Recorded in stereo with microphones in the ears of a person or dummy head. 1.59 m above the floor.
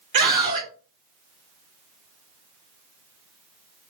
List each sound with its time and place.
0.1 s a scream: 60° right (ahead or behind), 0.9 m